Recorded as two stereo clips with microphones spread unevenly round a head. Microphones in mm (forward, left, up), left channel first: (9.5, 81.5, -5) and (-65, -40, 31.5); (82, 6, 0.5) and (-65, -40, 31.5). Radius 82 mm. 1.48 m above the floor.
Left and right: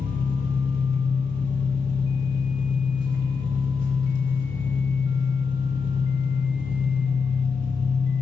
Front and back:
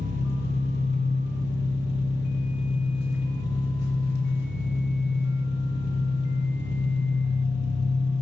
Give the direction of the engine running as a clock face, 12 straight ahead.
12 o'clock.